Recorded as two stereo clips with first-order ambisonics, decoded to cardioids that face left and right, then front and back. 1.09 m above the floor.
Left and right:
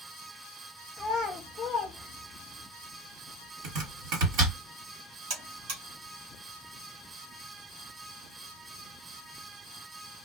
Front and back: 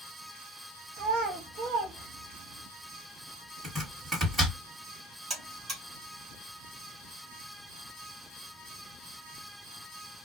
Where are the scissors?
No scissors in this recording.